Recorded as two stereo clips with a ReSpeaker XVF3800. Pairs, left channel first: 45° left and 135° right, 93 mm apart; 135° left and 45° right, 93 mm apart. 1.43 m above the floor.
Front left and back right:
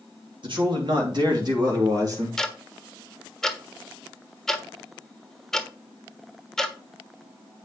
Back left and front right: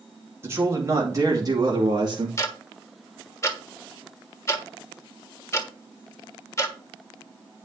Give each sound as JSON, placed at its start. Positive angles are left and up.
{"t": 0.4, "sound": "a man speaking", "azimuth_deg": -110, "distance_m": 2.5}
{"t": 2.4, "sound": "ticking", "azimuth_deg": 125, "distance_m": 1.2}